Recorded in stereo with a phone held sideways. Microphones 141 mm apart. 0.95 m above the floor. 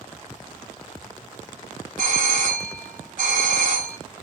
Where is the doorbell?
70° right (ahead or behind), 2.5 m.